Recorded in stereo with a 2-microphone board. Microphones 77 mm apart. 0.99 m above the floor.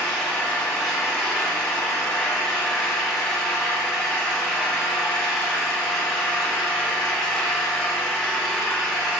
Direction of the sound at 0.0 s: 10° left (ahead or behind).